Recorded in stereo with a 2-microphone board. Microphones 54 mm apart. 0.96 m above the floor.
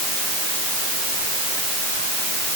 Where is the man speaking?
I don't hear a man speaking.